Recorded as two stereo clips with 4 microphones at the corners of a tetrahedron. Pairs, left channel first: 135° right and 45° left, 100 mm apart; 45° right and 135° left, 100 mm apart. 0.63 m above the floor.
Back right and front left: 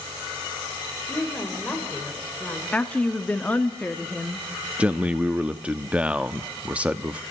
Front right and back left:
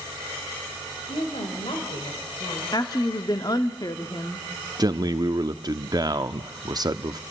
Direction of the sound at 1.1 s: 55° right.